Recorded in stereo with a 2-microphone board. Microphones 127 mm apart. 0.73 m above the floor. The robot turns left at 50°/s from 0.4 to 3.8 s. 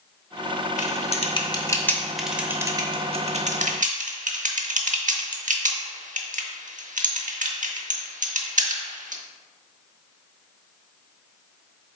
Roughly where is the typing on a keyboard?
Left.